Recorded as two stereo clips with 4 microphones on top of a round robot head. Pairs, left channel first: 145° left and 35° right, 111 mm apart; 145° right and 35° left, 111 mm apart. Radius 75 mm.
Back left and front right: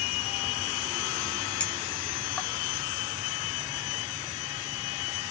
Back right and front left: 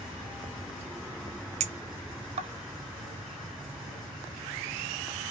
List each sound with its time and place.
1.6 s a clink: 70° left, 0.8 m